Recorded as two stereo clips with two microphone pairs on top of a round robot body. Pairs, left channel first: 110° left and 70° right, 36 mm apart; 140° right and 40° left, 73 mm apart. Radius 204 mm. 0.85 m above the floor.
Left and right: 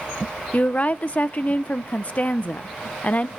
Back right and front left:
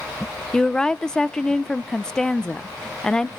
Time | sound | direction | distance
0.5 | a woman speaking | 150° left | 0.6 m